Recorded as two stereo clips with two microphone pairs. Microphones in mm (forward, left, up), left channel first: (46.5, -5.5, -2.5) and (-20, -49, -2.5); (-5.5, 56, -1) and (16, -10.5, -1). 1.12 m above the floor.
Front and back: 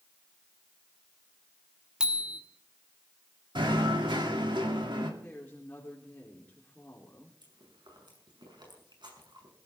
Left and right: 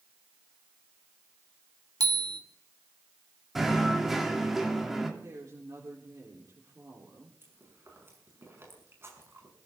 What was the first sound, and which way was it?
A bicycle bell, 70° right.